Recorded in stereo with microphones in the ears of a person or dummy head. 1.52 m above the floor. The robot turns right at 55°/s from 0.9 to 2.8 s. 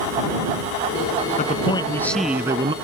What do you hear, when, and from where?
1.4 s a man speaking: 140° left; by 2.7 s 145° right